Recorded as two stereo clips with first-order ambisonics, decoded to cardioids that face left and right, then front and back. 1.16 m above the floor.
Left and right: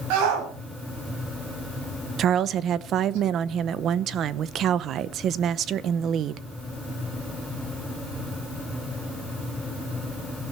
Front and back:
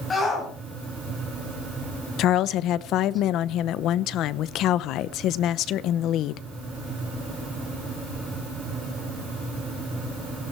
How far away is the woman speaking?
About 0.8 m.